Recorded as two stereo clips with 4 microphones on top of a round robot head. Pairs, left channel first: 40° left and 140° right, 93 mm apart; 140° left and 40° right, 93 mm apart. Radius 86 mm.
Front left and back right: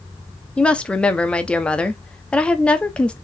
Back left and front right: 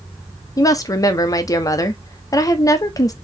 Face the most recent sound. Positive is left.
turn(degrees=115)